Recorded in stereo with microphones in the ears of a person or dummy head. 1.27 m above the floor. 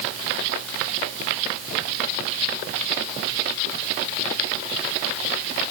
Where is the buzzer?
No buzzer in this recording.